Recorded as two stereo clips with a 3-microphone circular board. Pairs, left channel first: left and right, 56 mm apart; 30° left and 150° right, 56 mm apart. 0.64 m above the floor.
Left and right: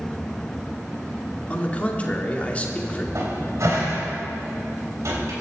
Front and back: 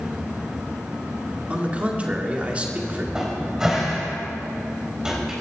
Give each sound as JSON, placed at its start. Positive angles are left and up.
{"t": 1.5, "sound": "a man speaking", "azimuth_deg": 150, "distance_m": 1.9}
{"t": 3.1, "sound": "a cupboard door", "azimuth_deg": -70, "distance_m": 4.0}